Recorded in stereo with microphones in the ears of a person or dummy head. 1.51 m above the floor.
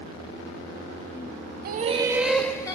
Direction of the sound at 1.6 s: 45° right (ahead or behind).